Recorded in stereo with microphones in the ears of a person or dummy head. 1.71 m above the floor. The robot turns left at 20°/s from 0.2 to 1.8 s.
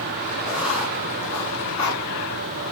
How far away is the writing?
About 3.5 m.